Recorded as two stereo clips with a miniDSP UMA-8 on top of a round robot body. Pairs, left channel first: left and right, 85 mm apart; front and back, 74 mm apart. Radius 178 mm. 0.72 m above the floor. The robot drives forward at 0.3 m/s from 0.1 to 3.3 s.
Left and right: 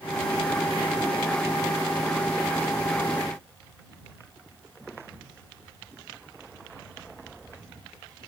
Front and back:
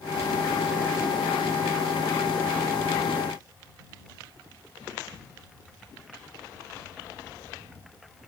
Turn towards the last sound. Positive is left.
No sound to turn to.